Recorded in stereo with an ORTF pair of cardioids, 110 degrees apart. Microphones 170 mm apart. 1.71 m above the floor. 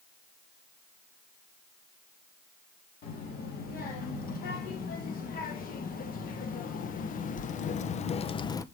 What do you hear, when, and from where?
3.0 s a child speaking: 60° left, 3.5 m; by 8.7 s 40° left, 0.5 m